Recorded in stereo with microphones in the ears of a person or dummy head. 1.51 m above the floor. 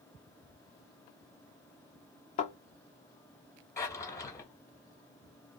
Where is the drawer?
15° left (ahead or behind), 1.2 m.